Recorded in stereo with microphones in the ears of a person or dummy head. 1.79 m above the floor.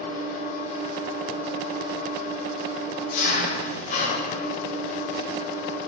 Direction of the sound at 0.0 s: 50° left (ahead or behind).